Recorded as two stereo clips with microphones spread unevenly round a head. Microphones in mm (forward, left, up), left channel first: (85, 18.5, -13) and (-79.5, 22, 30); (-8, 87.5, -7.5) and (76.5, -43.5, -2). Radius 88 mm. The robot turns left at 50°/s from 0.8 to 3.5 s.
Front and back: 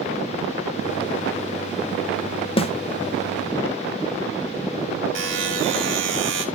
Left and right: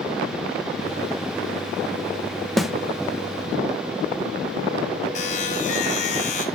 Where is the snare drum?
35° left, 1.0 m; by 2.7 s 30° left, 1.0 m.